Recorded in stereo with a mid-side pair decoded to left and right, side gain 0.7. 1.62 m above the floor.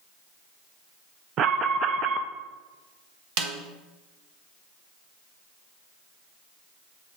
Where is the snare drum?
60° right, 1.1 m.